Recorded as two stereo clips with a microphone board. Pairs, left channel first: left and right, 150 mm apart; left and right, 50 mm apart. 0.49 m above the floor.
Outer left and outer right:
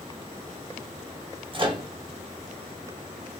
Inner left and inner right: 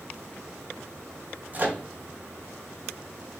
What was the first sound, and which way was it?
A microwave, 35° right (ahead or behind).